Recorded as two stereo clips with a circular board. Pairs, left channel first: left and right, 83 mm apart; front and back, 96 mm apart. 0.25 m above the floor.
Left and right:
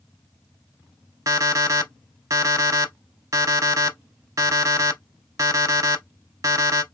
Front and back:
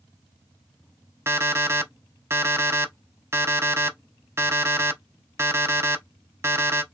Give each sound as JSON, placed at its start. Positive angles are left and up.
{"t": 1.3, "sound": "an alarm clock", "azimuth_deg": -125, "distance_m": 0.6}